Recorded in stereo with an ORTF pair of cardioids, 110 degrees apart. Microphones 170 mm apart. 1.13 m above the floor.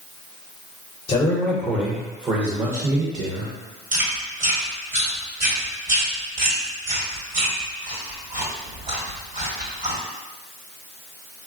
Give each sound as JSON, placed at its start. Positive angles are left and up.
{"t": 1.1, "sound": "a man speaking", "azimuth_deg": 30, "distance_m": 0.7}
{"t": 3.9, "sound": "chewing", "azimuth_deg": -55, "distance_m": 1.3}